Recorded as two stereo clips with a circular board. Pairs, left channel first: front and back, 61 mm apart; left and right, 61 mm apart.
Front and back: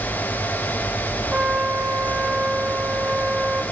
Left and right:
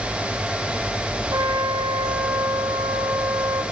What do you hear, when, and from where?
1.3 s a trumpet: 110° right, 4 m